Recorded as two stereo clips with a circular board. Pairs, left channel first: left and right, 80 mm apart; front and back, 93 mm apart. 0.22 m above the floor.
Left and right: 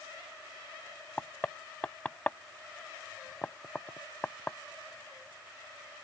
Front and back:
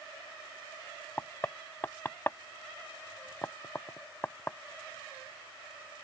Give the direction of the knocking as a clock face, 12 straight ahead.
11 o'clock.